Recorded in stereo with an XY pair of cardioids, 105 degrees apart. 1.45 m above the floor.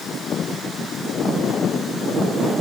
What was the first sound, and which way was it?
Only background noise.